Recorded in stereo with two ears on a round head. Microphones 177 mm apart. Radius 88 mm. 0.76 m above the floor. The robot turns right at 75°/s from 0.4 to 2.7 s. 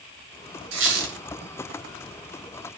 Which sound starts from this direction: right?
A squeak, at 0.7 s.